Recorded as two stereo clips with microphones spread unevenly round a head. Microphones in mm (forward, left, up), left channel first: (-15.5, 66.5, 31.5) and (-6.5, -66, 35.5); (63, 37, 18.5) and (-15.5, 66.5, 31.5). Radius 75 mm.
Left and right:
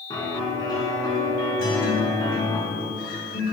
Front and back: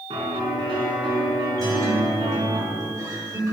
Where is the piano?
155° left, 4 m.